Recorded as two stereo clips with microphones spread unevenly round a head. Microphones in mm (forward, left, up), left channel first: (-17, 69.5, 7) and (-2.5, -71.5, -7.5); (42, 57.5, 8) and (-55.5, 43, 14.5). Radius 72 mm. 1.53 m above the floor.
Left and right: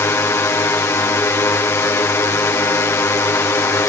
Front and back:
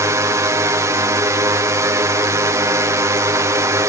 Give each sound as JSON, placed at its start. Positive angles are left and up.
{"t": 0.0, "sound": "a drone", "azimuth_deg": 155}